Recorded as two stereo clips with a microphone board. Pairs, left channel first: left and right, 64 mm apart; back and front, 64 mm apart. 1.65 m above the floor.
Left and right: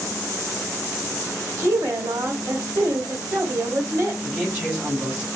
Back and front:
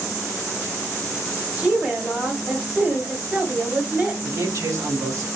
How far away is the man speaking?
About 3.5 m.